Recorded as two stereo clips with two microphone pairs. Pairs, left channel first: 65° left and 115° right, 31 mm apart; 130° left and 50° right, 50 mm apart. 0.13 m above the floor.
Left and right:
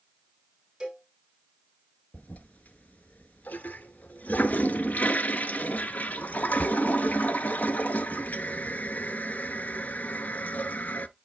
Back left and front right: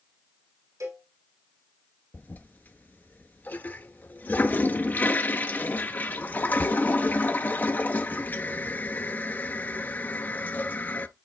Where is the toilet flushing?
80° left, 0.5 m.